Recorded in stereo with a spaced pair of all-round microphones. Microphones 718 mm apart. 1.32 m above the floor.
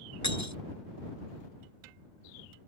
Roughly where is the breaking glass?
Left.